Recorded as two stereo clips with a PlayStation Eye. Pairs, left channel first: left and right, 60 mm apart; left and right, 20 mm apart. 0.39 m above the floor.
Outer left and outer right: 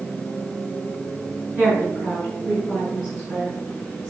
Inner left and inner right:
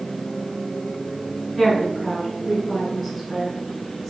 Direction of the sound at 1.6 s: 20° right (ahead or behind).